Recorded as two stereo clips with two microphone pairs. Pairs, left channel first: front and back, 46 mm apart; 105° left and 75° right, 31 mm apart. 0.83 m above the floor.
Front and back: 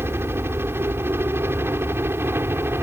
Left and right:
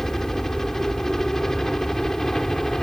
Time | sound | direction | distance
0.0 | a helicopter | straight behind | ?